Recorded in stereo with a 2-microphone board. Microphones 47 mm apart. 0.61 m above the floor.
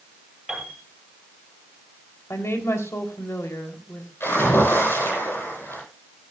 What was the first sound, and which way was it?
A piano, 10° right (ahead or behind).